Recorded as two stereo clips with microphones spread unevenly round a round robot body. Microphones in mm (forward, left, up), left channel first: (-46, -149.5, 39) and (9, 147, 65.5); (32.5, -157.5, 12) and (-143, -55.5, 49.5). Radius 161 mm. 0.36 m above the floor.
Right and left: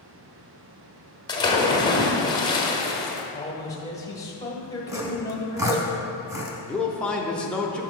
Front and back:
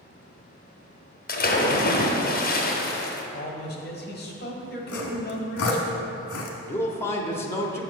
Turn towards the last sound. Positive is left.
turn(degrees=-30)